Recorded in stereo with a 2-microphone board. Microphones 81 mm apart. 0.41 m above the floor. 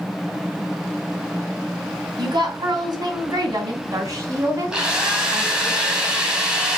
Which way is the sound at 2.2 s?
60° right (ahead or behind).